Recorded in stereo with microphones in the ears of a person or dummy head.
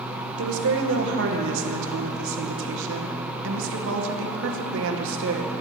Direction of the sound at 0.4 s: 70° right (ahead or behind).